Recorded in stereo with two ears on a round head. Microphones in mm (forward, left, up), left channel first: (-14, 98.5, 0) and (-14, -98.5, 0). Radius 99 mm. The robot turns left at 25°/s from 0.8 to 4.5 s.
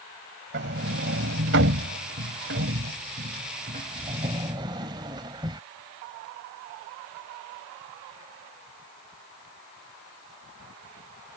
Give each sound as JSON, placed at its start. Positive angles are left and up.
{"t": 0.5, "sound": "a sliding door", "side_deg": -50}